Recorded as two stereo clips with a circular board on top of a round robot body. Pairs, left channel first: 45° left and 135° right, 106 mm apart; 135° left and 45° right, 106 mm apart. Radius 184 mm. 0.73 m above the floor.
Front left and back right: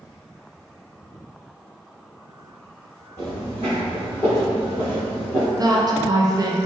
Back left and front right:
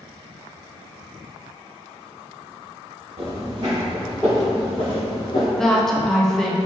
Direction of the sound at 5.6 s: 140° right.